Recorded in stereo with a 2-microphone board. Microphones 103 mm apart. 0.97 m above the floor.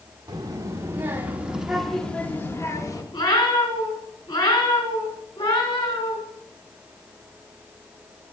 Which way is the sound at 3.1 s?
50° left (ahead or behind).